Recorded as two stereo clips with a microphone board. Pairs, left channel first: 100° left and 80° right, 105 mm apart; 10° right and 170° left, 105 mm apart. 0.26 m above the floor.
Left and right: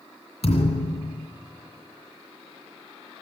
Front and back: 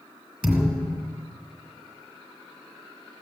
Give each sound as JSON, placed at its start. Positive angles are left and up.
{"t": 0.4, "sound": "a thud", "azimuth_deg": 85, "distance_m": 2.5}